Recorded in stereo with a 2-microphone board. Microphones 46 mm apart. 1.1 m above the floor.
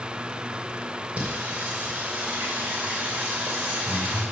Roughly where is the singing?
Right.